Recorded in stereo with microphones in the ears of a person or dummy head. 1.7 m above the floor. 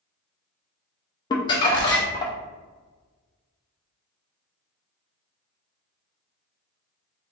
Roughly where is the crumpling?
Left.